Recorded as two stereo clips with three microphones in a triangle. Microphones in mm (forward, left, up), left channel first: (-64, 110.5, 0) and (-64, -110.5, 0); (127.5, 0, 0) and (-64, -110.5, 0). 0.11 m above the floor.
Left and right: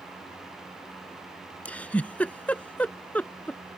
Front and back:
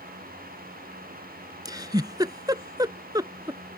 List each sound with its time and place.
1.6 s a giggle: 165° left